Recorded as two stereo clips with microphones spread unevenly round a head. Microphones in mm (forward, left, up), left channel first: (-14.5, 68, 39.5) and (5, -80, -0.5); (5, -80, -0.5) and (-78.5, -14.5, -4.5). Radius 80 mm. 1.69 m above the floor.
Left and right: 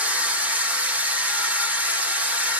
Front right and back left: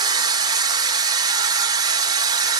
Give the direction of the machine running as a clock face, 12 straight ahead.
6 o'clock.